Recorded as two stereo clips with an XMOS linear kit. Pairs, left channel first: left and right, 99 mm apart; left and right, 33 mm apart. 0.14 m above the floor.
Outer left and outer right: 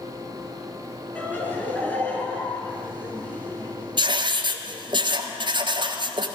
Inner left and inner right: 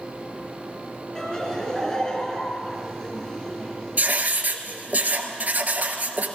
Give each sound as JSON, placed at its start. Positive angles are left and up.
{"t": 1.1, "sound": "laughter", "side_deg": 20, "distance_m": 3.0}
{"t": 4.0, "sound": "writing", "side_deg": -55, "distance_m": 1.0}